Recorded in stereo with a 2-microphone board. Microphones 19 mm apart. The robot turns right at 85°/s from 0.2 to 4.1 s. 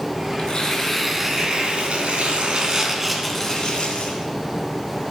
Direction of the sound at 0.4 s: 120° left.